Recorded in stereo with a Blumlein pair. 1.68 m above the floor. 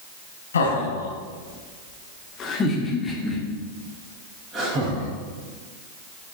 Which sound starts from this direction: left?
Laughter, at 0.5 s.